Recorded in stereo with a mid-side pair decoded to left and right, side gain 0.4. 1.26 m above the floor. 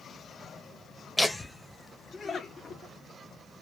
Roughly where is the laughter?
Ahead.